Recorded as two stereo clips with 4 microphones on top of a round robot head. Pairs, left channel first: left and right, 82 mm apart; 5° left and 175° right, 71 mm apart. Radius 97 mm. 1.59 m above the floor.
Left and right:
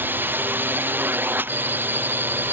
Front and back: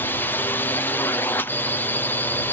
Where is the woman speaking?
No woman speaking in this recording.